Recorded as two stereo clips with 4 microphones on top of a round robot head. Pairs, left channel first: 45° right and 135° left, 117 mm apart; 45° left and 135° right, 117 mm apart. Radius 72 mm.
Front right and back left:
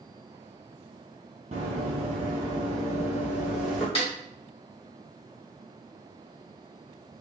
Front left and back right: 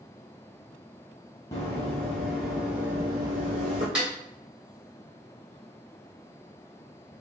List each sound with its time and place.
1.5 s running footsteps: 105° left, 1.2 m; by 3.9 s 130° right, 1.0 m
4.0 s a snare drum: 55° right, 1.6 m